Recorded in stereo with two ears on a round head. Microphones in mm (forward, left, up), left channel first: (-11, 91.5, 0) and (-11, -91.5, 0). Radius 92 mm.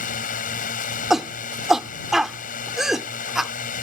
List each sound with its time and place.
0.0 s a drone: 40° left (ahead or behind)
1.1 s a shout: centre (ahead or behind)